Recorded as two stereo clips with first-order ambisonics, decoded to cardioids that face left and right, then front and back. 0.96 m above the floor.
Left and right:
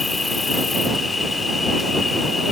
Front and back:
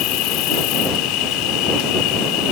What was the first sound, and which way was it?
An insect, 15° left.